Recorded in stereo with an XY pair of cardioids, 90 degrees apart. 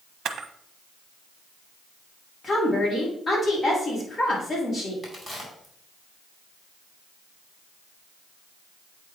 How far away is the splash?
I don't hear a splash.